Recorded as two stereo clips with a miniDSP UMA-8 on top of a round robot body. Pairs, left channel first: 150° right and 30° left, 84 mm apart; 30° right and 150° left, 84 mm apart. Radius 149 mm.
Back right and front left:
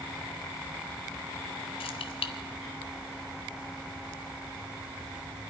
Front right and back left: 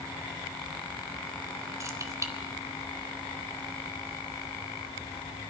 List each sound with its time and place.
1.8 s keys jangling: 155° right, 1.2 m